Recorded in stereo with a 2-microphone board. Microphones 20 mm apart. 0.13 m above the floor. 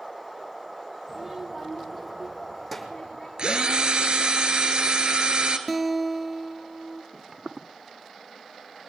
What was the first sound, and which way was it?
A child speaking, 15° right (ahead or behind).